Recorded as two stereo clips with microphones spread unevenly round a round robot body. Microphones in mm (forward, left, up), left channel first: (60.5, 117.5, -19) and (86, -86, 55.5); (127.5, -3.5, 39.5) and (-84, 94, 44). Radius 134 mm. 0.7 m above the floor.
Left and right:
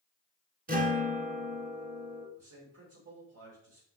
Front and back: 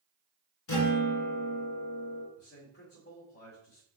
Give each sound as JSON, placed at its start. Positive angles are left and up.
{"t": 0.7, "sound": "a guitar", "azimuth_deg": -40, "distance_m": 2.0}
{"t": 2.4, "sound": "a man speaking", "azimuth_deg": -70, "distance_m": 2.5}